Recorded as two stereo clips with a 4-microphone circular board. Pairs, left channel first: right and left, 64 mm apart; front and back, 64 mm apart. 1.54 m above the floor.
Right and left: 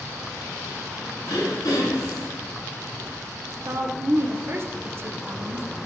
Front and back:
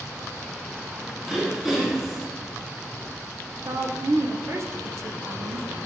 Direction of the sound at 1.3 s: 100° right.